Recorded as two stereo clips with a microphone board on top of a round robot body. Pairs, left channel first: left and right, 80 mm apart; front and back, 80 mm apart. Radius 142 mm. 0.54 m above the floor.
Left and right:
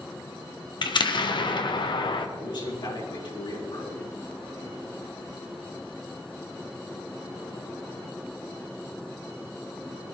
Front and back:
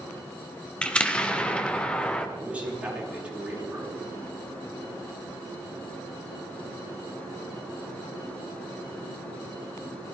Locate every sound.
0.8 s an explosion: 75° left, 1.6 m
2.4 s a man speaking: 105° left, 7 m